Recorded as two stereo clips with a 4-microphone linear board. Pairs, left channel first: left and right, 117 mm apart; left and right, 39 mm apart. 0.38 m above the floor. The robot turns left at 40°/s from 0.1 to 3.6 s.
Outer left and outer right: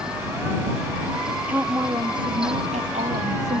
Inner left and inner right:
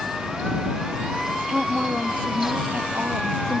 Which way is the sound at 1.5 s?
10° right.